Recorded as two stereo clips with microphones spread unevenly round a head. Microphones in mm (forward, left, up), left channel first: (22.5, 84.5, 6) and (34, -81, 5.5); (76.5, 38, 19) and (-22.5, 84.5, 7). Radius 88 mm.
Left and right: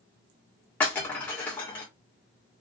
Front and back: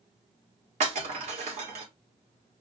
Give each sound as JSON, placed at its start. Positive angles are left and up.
{"t": 0.8, "sound": "breaking glass", "azimuth_deg": 170, "distance_m": 1.7}